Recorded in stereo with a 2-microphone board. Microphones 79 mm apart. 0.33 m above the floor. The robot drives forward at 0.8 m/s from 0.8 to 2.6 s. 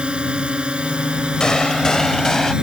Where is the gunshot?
10° left (ahead or behind); by 2.5 s 5° left (ahead or behind).